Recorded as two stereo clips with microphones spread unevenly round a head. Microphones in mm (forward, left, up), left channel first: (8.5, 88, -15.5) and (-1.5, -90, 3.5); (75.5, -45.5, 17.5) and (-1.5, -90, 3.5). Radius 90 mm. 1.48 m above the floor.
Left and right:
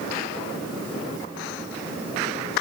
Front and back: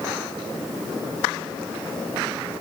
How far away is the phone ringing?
I don't hear a phone ringing.